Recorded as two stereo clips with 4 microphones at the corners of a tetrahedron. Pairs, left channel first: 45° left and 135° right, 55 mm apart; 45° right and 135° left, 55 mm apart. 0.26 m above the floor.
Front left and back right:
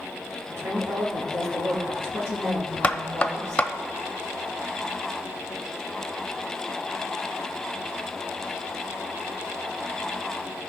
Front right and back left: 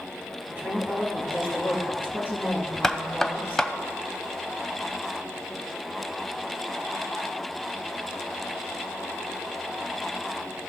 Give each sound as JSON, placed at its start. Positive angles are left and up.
{"t": 0.5, "sound": "a woman speaking", "azimuth_deg": -165, "distance_m": 4.0}
{"t": 2.8, "sound": "knocking", "azimuth_deg": 25, "distance_m": 0.6}